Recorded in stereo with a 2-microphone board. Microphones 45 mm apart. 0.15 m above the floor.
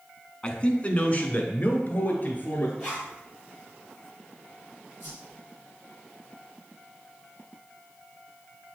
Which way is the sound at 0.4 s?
25° left (ahead or behind).